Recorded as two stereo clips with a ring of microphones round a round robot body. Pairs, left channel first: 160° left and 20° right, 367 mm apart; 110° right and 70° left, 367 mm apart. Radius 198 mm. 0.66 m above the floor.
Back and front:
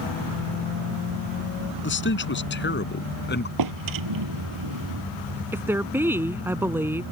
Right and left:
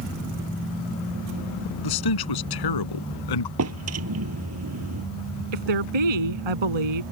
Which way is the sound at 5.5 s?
60° left.